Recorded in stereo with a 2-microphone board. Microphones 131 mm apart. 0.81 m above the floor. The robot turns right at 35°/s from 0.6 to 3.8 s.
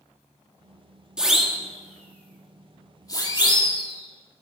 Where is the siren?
5° right (ahead or behind), 2 m; by 4.4 s 40° left (ahead or behind), 3 m.